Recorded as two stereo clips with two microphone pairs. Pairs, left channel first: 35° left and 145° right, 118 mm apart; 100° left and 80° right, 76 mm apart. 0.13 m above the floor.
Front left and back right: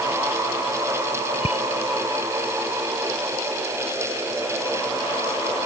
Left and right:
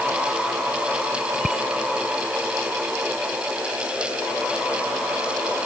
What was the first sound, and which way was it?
A bicycle bell, 5° left.